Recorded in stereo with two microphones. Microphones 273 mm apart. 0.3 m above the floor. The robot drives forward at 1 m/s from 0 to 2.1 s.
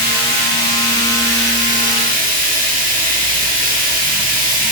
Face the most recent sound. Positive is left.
turn(degrees=-30)  # may be behind; listen again after turning